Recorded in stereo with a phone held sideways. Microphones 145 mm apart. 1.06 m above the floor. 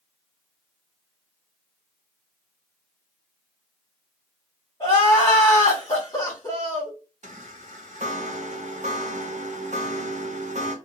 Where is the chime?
55° right (ahead or behind), 0.6 m.